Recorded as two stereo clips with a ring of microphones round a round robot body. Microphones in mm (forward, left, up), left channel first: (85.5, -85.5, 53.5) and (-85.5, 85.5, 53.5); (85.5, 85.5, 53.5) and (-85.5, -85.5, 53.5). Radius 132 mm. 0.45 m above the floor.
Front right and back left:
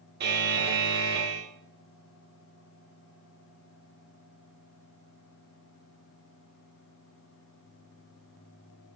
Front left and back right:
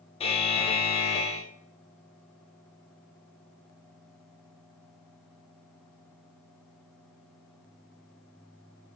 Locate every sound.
0.2 s a buzzer: 105° left, 0.5 m